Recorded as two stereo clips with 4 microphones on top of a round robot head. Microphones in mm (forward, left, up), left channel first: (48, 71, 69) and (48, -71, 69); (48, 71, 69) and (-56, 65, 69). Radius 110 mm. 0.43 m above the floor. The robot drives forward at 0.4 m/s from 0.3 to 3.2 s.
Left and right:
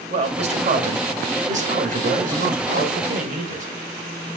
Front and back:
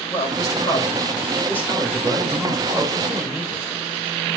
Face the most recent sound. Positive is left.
turn(degrees=-100)